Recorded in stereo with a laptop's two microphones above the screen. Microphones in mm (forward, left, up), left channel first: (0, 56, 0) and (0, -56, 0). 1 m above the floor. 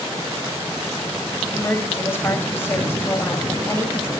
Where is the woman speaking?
20° left (ahead or behind), 5 m.